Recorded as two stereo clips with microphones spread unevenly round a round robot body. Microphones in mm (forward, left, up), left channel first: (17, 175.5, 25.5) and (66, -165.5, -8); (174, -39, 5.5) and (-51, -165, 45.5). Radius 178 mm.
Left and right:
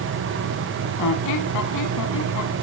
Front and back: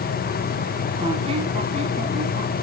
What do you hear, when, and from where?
1.0 s a squeak: 140° left, 1.2 m